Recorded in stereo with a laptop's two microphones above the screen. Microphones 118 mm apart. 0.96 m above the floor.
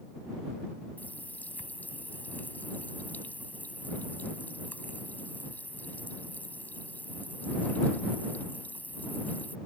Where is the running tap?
15° left (ahead or behind).